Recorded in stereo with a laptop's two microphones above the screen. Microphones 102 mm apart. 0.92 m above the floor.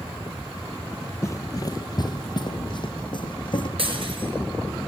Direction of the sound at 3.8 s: 60° right (ahead or behind).